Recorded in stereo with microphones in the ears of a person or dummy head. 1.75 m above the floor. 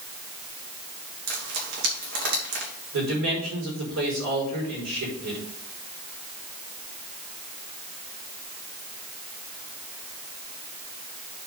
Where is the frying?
70° right (ahead or behind), 3.5 m.